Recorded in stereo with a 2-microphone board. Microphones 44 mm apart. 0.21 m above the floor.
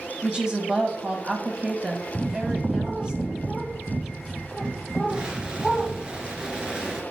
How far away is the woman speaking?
About 1.2 m.